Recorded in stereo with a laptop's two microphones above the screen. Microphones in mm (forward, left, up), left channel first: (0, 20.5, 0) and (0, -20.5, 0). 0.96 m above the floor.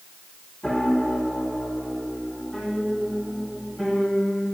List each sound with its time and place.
0.6 s a piano: 10° left (ahead or behind), 3.5 m